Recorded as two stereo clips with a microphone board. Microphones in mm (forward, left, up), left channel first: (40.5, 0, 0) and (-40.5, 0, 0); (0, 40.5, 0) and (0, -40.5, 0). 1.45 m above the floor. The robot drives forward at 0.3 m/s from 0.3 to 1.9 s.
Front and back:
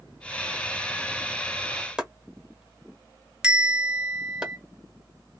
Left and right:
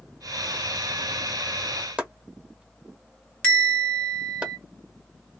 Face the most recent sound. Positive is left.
turn(degrees=130)